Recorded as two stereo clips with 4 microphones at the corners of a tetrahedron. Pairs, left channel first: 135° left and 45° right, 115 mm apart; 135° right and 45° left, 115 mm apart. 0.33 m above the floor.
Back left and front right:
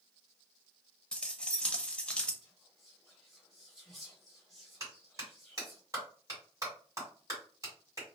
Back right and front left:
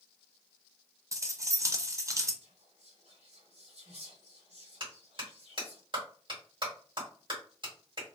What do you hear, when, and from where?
1.1 s keys jangling: 65° left, 0.5 m
2.4 s whispering: 45° left, 2.0 m
4.8 s a clap: 10° left, 2.0 m